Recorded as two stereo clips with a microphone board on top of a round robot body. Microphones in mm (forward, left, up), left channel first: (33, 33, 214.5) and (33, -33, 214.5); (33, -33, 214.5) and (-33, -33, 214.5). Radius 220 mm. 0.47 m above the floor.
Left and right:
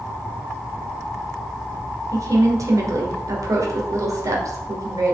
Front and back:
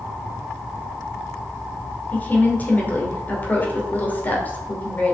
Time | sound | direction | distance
2.1 | a woman speaking | 60° right | 2.5 m